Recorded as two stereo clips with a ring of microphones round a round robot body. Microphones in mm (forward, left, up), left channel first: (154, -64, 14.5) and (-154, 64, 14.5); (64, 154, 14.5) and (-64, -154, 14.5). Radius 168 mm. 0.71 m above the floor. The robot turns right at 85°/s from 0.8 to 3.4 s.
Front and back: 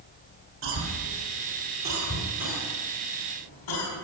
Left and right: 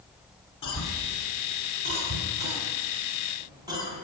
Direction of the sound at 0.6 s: 105° left.